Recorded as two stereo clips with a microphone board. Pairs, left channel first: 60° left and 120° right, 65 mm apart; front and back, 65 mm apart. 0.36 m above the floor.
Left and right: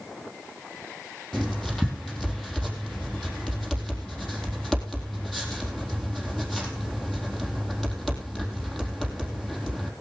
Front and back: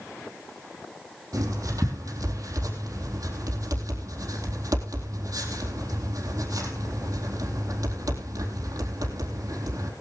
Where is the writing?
145° left, 4 m.